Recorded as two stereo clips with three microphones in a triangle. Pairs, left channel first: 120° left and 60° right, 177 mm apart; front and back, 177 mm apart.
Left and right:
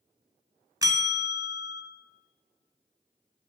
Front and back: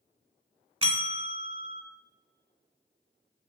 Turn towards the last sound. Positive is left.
turn(degrees=-125)